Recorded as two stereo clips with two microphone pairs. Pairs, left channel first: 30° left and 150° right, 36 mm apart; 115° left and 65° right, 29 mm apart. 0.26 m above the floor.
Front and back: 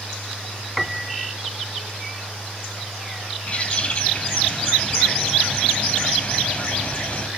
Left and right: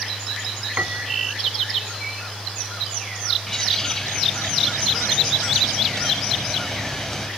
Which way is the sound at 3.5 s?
45° left.